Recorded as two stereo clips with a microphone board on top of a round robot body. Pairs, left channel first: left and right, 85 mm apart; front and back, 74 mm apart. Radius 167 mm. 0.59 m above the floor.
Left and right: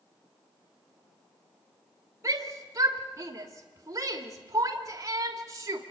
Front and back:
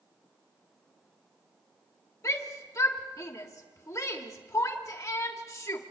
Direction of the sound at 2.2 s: 40° right.